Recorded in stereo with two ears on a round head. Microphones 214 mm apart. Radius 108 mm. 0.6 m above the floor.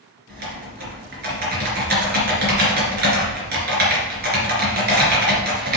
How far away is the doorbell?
No doorbell in this recording.